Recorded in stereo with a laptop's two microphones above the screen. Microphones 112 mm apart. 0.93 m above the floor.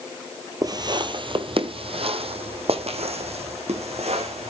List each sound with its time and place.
0.6 s footsteps: 35° right (ahead or behind), 1.2 m; by 4.5 s 75° right (ahead or behind), 3.5 m